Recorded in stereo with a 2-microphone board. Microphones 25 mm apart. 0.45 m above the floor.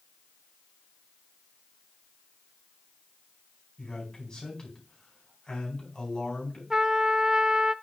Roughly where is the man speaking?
Left.